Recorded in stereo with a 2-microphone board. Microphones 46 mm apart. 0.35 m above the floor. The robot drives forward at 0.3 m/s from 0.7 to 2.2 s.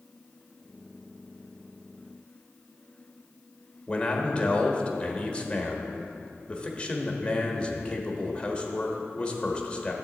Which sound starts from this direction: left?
A man speaking, at 3.9 s.